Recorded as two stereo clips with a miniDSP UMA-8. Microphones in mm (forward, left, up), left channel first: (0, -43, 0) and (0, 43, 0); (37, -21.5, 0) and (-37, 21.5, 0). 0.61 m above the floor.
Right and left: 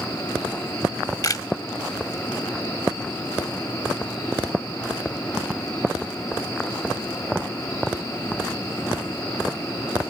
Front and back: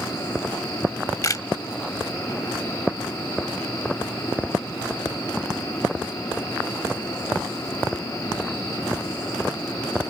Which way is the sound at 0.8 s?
65° right.